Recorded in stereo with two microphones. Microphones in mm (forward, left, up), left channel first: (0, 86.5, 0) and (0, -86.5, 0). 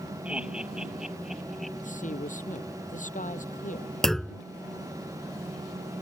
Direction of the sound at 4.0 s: Centre (ahead or behind).